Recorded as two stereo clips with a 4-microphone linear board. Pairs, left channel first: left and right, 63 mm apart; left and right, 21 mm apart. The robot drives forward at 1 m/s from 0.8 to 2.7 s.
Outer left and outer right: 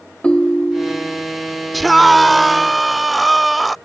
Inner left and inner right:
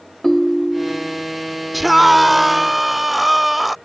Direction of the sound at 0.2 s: 20° left (ahead or behind).